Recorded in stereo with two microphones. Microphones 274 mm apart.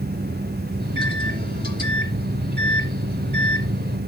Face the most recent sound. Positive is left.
turn(degrees=-35)  # may be behind; listen again after turning